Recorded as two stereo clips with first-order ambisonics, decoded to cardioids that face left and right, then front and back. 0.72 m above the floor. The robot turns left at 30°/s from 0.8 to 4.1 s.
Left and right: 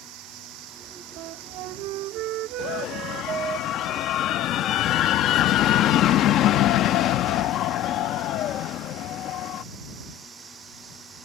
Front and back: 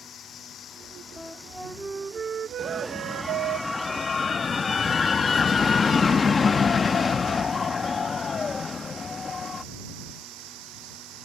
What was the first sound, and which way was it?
Running water, 60° right.